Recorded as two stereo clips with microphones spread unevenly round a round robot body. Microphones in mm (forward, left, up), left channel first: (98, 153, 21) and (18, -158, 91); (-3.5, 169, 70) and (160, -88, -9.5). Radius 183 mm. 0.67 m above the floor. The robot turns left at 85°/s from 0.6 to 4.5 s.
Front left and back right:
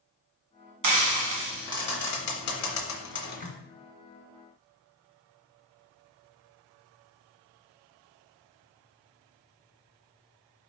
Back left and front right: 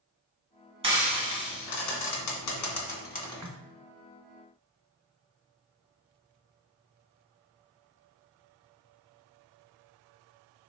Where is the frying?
110° right, 1.8 m; by 3.5 s 25° left, 1.8 m.